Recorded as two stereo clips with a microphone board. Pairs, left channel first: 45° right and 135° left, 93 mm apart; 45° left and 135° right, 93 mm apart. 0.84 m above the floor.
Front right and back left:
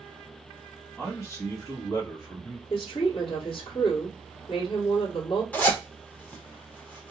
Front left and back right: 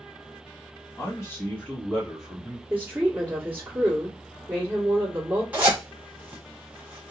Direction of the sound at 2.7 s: 65° right.